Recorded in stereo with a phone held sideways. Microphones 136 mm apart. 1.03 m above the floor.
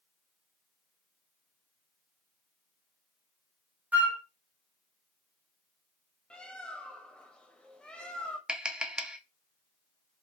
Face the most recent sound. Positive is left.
turn(degrees=-5)  # may be behind; listen again after turning